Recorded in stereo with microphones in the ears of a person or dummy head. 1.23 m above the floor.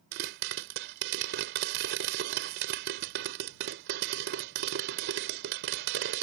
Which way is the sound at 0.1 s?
70° right (ahead or behind).